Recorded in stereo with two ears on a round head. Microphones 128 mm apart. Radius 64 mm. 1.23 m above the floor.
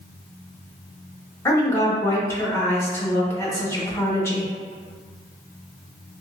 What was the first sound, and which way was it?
A woman speaking, 20° left (ahead or behind).